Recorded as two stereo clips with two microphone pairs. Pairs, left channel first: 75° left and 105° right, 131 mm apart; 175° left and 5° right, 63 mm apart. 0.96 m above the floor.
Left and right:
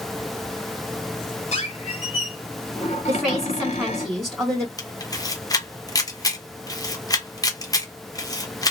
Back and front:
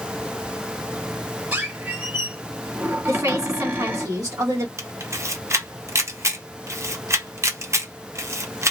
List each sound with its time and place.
1.5 s a squeak: 50° left, 1.5 m
3.1 s a woman speaking: 25° right, 1.5 m
4.8 s a camera shutter: 20° left, 0.8 m